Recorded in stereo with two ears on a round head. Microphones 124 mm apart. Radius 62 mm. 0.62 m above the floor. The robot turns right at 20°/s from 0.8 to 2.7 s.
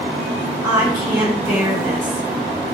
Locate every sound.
0.6 s a woman speaking: 5° right (ahead or behind), 1.2 m; by 2.2 s 25° right (ahead or behind), 1.2 m